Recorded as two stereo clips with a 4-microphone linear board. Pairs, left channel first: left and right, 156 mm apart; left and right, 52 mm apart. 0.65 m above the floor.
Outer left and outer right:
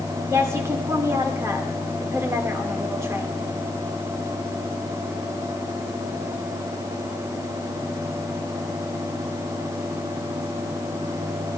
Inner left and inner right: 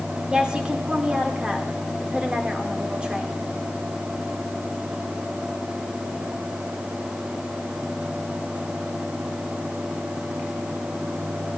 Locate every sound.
0.3 s a woman speaking: 15° right (ahead or behind), 2.0 m